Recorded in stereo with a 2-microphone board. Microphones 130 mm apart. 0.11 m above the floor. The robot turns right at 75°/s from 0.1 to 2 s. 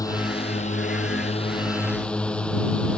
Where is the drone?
30° left; by 3.0 s 170° left.